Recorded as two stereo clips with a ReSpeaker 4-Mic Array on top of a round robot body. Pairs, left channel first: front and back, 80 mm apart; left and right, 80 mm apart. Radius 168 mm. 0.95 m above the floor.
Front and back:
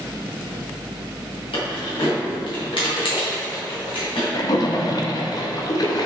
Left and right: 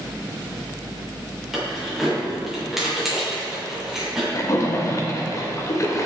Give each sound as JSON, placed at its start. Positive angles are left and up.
{"t": 1.5, "sound": "keys jangling", "azimuth_deg": 0, "distance_m": 3.5}
{"t": 4.3, "sound": "a splash", "azimuth_deg": 40, "distance_m": 1.4}